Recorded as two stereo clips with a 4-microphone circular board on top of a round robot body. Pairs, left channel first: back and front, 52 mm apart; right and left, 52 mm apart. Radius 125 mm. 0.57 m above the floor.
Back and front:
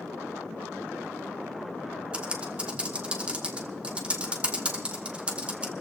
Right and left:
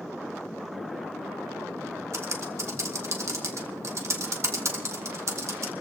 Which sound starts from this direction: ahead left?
Typing on a keyboard, at 2.1 s.